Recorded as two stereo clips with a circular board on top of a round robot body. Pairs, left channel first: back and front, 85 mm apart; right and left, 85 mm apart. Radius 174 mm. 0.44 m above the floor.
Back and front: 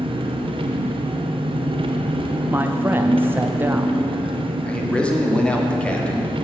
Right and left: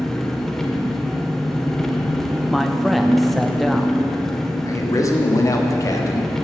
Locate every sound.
0.0 s an engine running: 5° right, 0.7 m
2.5 s a man speaking: straight ahead, 0.7 m
4.7 s a man speaking: 110° right, 1.6 m